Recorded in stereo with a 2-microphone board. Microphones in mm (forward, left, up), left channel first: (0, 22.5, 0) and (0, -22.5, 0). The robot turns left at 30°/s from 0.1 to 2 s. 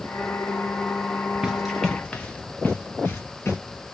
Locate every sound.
1.4 s running footsteps: 15° right (ahead or behind), 0.7 m; by 3.6 s 70° left (ahead or behind), 1.2 m